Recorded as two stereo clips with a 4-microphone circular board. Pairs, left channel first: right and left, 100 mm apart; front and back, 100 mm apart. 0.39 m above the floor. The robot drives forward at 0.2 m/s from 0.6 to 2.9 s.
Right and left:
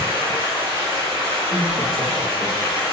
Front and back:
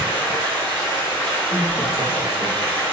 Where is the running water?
60° left, 1.8 m; by 2.9 s 70° left, 1.6 m.